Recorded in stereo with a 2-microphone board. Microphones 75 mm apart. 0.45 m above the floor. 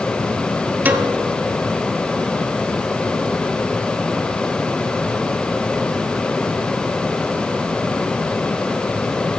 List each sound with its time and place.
0.8 s a piano: 25° right (ahead or behind), 0.8 m